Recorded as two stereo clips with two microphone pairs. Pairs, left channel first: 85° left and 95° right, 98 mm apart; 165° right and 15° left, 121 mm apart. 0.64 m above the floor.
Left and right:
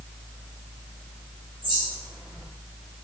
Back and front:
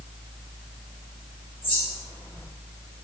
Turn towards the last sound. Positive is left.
turn(degrees=-125)